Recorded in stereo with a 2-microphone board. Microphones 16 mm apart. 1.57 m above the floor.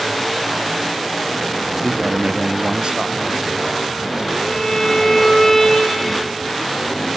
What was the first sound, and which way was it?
A man speaking, 35° right (ahead or behind).